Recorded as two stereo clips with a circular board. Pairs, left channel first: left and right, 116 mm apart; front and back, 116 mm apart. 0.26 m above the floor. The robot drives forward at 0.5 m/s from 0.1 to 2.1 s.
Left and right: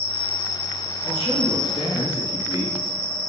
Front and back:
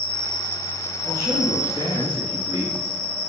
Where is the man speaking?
120° left, 3 m; by 2.9 s 130° left, 3.5 m.